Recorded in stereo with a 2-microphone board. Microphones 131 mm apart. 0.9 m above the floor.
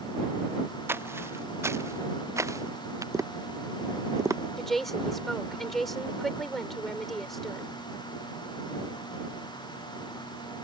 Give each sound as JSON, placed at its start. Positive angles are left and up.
{"t": 0.9, "sound": "footsteps", "side_deg": -20}
{"t": 3.1, "sound": "tapping", "side_deg": -25}
{"t": 4.6, "sound": "a woman speaking", "side_deg": 0}